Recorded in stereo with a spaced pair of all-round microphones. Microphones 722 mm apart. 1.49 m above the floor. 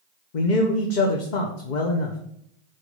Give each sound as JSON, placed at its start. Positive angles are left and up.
{"t": 0.3, "sound": "a man speaking", "side_deg": 70, "distance_m": 1.0}